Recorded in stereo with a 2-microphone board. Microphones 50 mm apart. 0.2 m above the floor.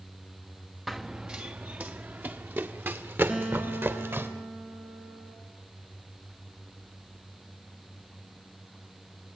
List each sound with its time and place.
0.9 s running footsteps: centre (ahead or behind), 0.8 m; by 4.3 s 50° right (ahead or behind), 3 m
3.3 s a guitar: 20° right (ahead or behind), 3.5 m